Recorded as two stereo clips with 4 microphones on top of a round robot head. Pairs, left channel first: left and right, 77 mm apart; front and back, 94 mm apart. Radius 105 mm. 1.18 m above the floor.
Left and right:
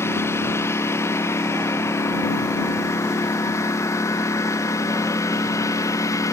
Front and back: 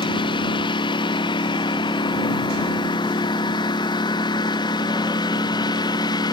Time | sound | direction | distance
0.0 | a lawn mower | 35° left | ?